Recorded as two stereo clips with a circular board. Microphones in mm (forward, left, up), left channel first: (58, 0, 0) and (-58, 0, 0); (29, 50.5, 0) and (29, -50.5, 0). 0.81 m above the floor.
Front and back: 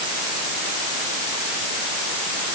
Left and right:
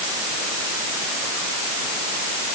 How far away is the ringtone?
No ringtone in this recording.